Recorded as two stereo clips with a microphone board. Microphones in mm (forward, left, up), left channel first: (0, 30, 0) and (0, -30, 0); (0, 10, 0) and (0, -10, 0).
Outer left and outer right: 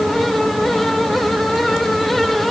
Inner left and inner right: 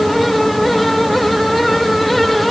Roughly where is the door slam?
I don't hear a door slam.